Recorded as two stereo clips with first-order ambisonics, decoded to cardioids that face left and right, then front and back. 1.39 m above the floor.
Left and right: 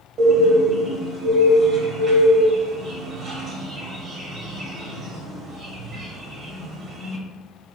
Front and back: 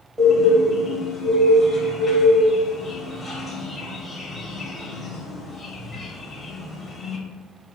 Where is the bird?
100° right, 1.2 m.